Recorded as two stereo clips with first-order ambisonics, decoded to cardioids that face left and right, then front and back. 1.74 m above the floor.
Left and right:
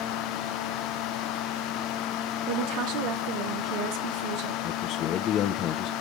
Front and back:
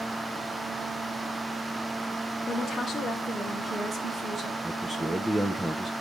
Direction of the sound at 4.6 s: 95° left.